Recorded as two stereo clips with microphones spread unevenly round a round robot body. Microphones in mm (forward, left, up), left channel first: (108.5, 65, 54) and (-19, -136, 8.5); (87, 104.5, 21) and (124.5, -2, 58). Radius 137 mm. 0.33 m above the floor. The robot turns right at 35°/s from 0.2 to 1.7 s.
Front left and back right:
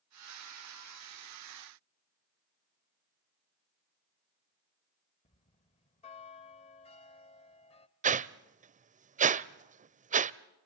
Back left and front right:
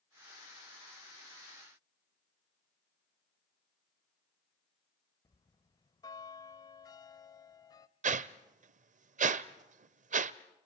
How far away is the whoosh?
About 0.6 m.